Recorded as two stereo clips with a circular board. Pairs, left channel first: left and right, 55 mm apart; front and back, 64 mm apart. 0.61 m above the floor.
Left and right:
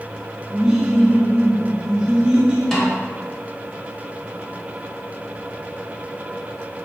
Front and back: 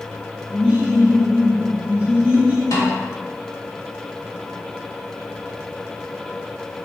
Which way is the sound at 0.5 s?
150° right.